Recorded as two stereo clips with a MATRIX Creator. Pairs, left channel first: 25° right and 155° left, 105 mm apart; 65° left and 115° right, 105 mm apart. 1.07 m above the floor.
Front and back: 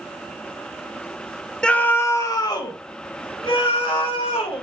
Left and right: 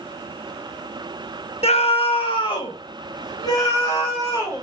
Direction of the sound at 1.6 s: 60° left.